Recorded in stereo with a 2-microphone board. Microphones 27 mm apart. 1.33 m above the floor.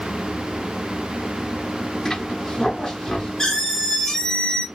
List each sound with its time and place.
2.0 s a squeak: 25° left (ahead or behind), 1.0 m